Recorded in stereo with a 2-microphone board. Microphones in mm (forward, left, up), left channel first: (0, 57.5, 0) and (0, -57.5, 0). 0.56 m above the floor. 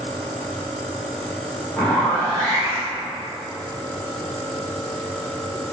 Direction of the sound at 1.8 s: 15° left (ahead or behind).